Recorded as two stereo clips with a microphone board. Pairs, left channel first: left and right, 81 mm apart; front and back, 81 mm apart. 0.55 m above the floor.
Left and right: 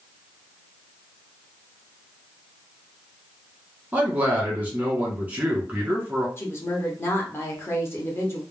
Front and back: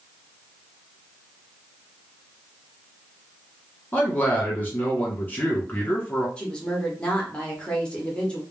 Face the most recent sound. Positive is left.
turn(degrees=65)